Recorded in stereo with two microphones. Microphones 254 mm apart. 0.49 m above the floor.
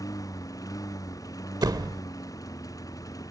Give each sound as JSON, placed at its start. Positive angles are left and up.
{"t": 0.0, "sound": "a lawn mower", "side_deg": 15}
{"t": 1.6, "sound": "a door slam", "side_deg": -15}